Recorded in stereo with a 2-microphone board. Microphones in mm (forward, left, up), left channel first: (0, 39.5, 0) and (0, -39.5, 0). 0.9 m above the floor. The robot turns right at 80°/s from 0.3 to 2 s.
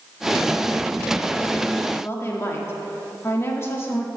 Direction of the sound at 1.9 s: 25° left (ahead or behind).